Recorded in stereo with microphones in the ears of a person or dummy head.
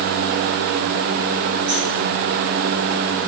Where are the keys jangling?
25° right (ahead or behind), 3 m.